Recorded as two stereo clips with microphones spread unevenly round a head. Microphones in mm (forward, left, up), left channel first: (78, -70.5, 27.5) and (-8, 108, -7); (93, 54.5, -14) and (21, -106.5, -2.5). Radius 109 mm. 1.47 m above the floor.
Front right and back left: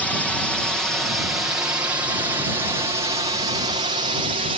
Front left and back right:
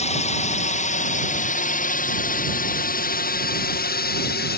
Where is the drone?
25° left; by 4.6 s 65° left.